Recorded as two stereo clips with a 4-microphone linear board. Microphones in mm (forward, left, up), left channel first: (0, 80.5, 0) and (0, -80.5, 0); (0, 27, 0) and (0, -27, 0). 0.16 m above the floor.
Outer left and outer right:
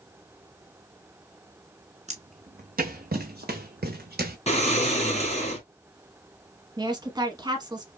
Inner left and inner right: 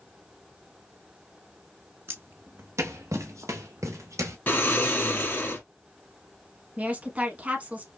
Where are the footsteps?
45° right (ahead or behind), 1.1 m; by 4.4 s 80° right, 1.5 m.